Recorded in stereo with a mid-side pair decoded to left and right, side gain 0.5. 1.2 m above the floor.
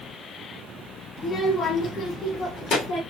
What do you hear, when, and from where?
1.2 s a child speaking: 35° left, 1.5 m; by 3.0 s 75° left, 2.5 m